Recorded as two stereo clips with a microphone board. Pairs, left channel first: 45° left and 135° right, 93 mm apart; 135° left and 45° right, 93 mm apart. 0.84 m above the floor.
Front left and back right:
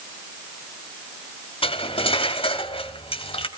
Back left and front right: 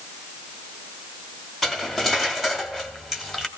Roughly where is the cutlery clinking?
Ahead left.